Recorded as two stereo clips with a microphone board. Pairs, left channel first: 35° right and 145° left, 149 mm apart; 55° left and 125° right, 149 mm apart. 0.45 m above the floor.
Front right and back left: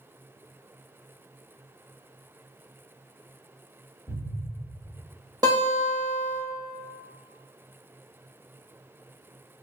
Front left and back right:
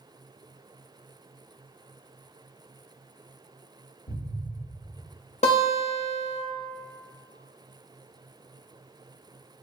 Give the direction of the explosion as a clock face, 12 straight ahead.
10 o'clock.